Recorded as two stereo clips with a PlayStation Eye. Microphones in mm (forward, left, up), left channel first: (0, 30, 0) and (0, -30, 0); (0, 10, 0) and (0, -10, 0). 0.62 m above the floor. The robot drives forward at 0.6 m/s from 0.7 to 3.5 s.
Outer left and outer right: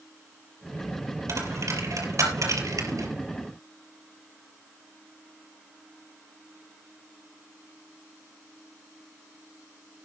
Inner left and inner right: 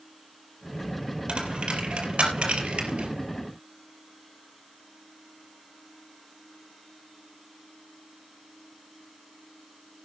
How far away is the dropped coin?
About 4.5 m.